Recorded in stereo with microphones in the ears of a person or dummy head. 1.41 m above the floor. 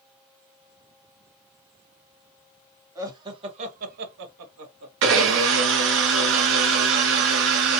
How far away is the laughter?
About 1.1 m.